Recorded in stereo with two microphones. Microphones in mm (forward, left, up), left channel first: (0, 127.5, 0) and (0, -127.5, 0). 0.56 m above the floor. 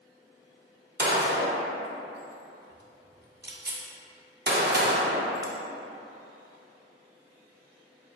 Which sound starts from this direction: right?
A gunshot, at 1.0 s.